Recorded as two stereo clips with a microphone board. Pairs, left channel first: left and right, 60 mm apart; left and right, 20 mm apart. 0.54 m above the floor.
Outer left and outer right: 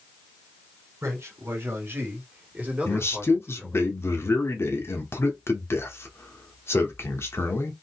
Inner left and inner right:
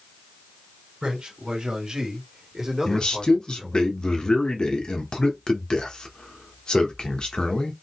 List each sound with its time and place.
1.0 s a man speaking: 55° right (ahead or behind), 2 m; by 3.9 s centre (ahead or behind), 1.6 m
2.9 s a man speaking: 45° left (ahead or behind), 0.9 m